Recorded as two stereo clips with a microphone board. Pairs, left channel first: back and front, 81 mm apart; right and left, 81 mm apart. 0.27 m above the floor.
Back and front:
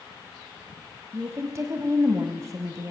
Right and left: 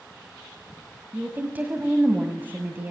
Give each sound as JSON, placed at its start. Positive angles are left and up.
{"t": 1.1, "sound": "a woman speaking", "azimuth_deg": 30, "distance_m": 1.8}